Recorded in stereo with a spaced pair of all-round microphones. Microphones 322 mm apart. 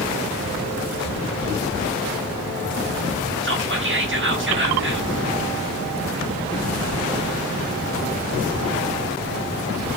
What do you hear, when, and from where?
3.4 s whispering: 40° right (ahead or behind), 0.7 m